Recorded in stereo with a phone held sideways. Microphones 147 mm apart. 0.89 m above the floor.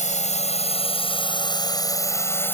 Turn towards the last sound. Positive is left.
turn(degrees=15)  # may be behind; listen again after turning